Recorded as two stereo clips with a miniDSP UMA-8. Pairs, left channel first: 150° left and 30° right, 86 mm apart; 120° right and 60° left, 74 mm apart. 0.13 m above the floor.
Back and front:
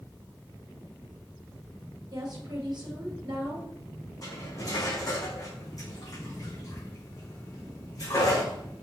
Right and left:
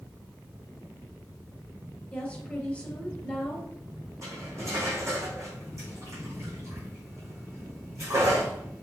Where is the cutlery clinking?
105° left, 4.5 m.